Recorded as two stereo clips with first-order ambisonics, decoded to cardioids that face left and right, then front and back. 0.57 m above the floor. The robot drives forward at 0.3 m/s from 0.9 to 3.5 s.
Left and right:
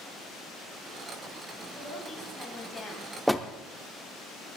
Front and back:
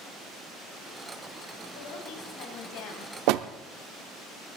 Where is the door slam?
Straight behind, 0.7 m.